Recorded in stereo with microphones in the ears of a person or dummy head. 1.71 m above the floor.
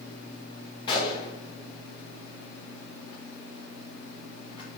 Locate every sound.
0.9 s a gunshot: 30° left (ahead or behind), 0.7 m